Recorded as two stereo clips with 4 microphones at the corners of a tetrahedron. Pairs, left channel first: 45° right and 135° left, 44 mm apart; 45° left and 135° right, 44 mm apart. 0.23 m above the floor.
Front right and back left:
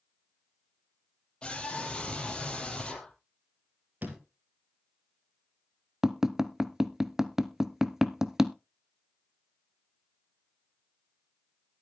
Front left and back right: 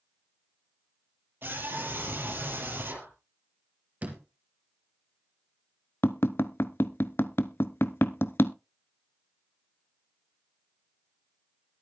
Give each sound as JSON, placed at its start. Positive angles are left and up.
{"t": 1.4, "sound": "a scream", "azimuth_deg": -110, "distance_m": 6.5}
{"t": 4.0, "sound": "a door slam", "azimuth_deg": 180, "distance_m": 3.0}
{"t": 6.0, "sound": "tapping", "azimuth_deg": 55, "distance_m": 0.6}